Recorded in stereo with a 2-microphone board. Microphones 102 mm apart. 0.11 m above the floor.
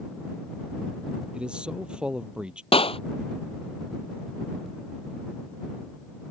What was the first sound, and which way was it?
A man speaking, 10° right (ahead or behind).